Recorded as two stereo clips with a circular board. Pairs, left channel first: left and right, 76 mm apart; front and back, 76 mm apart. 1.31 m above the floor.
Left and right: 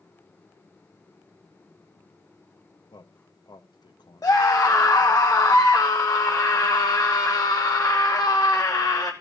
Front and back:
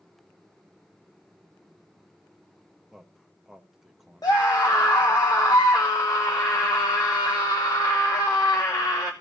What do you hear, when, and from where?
2.9 s a man speaking: 95° left, 1.0 m
4.2 s a scream: 40° left, 1.0 m